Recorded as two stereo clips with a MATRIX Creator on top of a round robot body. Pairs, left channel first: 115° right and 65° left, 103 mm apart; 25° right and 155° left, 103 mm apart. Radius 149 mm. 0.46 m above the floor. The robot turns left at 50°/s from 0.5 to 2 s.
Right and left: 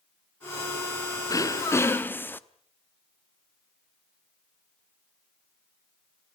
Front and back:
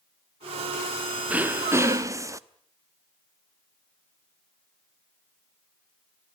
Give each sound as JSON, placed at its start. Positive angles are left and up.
{"t": 1.3, "sound": "throat clearing", "azimuth_deg": -135, "distance_m": 1.2}